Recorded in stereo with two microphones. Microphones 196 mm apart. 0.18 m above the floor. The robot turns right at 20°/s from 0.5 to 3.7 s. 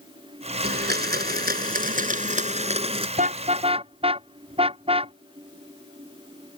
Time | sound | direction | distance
0.6 | a blender | 85° right | ?
3.2 | a car horn | 40° right (ahead or behind) | ?